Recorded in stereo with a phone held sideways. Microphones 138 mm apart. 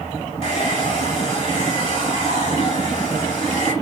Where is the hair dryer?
45° left (ahead or behind), 2.5 m.